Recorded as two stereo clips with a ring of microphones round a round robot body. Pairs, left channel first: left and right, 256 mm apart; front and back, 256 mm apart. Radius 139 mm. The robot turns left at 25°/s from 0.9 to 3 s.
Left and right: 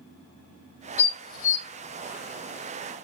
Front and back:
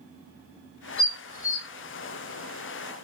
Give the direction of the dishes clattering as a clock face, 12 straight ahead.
10 o'clock.